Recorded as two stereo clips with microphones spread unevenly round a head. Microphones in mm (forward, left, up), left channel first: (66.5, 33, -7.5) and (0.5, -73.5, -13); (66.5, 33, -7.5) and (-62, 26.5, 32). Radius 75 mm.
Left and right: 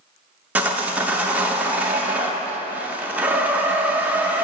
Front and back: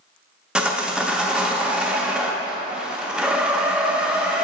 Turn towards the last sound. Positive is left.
turn(degrees=170)